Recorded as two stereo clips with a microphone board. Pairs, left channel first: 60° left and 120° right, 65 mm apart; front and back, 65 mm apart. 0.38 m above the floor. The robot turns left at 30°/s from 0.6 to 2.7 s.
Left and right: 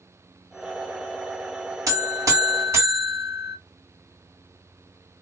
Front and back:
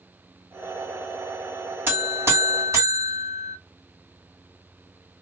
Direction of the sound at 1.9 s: 130° right.